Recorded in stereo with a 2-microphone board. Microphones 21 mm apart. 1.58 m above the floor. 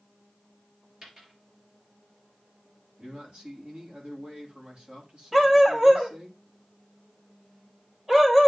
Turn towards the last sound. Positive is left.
turn(degrees=-20)  # may be behind; listen again after turning